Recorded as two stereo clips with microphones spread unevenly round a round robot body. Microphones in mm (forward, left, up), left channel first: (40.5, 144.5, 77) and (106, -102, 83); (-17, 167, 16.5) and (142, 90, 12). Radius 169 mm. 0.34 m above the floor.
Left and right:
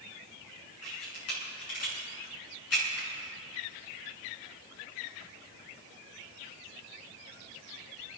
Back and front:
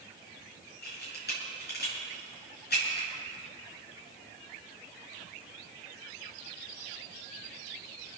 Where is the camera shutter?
135° left, 6 m.